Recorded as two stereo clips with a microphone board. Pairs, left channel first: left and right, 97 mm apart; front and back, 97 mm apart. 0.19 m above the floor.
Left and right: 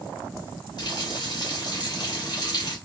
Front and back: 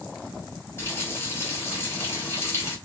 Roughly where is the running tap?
Ahead left.